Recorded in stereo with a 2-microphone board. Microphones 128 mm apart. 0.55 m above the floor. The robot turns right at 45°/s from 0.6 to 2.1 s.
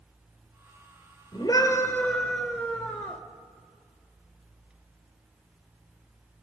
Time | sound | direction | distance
1.3 | a scream | 135° left | 2 m